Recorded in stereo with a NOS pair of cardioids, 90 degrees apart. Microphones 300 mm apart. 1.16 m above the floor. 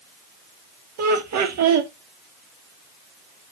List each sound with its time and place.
1.0 s laughter: 65° right, 2.0 m